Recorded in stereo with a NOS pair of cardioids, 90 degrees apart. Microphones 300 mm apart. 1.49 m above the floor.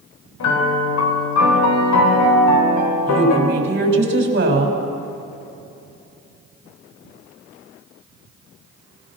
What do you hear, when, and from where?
0.4 s a piano: 70° left, 4.5 m
3.1 s a woman speaking: 35° right, 6.5 m